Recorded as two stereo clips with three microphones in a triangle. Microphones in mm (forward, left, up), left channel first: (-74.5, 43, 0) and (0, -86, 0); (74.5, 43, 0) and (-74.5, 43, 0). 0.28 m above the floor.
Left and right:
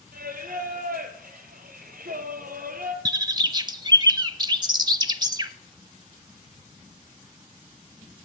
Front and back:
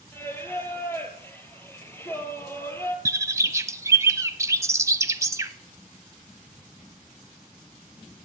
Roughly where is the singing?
Right.